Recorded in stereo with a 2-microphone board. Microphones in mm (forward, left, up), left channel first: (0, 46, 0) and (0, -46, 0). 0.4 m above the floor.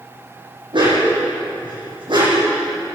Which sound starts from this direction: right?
A dog barking, at 0.7 s.